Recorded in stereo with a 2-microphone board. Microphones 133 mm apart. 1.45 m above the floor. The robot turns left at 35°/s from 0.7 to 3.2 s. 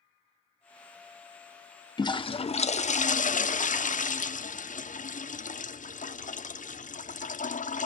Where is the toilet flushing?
150° left, 0.7 m; by 7.9 s 105° left, 0.7 m.